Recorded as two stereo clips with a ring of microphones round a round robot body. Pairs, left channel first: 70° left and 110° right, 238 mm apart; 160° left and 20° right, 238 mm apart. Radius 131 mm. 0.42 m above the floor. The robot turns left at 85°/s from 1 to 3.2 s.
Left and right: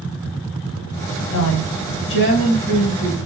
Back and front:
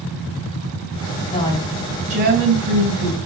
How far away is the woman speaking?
About 3 m.